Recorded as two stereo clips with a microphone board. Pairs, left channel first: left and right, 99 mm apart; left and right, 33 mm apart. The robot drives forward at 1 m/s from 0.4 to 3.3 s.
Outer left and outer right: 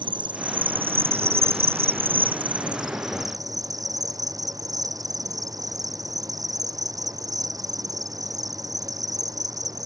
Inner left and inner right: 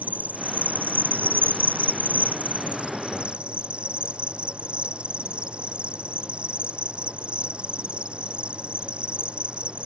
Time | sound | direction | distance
0.0 | an insect | 50° right (ahead or behind) | ?